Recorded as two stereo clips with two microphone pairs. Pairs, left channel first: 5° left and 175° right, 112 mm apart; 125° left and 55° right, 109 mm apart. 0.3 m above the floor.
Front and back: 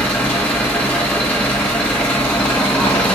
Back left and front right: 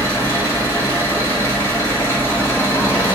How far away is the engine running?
About 1.5 m.